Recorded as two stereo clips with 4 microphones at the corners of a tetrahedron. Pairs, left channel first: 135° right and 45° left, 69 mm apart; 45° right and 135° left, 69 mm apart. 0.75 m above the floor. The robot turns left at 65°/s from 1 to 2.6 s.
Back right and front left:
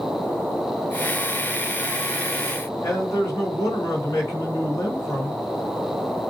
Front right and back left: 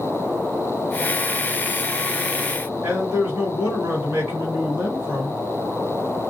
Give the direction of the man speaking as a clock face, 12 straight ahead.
5 o'clock.